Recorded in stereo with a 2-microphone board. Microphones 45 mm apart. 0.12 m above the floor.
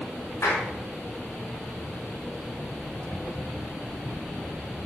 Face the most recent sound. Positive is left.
turn(degrees=65)  # may be behind; listen again after turning